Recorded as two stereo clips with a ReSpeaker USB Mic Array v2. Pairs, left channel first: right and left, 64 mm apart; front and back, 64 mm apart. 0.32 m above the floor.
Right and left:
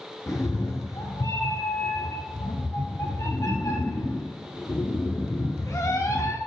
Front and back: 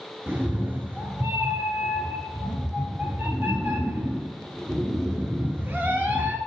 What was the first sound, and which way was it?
A cat meowing, 125° right.